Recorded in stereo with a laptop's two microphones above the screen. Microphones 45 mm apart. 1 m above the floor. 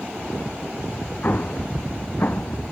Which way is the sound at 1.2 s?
45° left (ahead or behind).